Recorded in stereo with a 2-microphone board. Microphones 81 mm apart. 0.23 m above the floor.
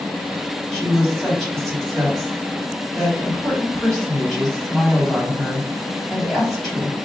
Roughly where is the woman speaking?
Centre.